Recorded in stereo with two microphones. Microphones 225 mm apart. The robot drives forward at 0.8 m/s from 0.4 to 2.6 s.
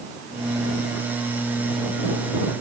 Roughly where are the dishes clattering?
I don't hear dishes clattering.